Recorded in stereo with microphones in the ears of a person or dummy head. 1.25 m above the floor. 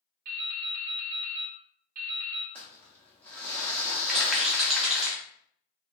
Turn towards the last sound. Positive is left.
turn(degrees=0)  # may be behind; listen again after turning